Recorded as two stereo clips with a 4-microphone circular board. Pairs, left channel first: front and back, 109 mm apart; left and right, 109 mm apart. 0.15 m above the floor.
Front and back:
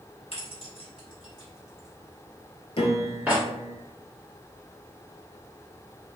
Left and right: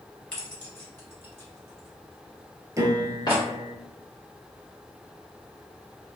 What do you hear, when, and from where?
0.3 s keys jangling: 10° left, 1.7 m; by 3.4 s 120° left, 1.2 m
2.8 s a piano: 30° right, 0.6 m